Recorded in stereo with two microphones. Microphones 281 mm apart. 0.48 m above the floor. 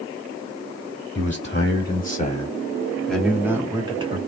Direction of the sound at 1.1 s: 45° left (ahead or behind).